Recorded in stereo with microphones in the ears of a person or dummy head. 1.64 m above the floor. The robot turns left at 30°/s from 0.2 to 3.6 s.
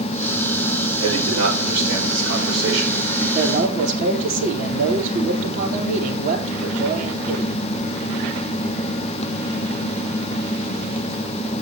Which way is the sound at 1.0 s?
30° right.